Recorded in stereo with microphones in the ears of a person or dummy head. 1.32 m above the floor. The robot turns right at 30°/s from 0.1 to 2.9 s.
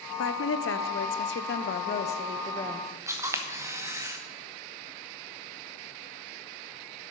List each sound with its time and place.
0.2 s a woman speaking: 85° left, 0.8 m; by 2.9 s 165° left, 0.8 m
3.1 s a camera shutter: 20° right (ahead or behind), 1.0 m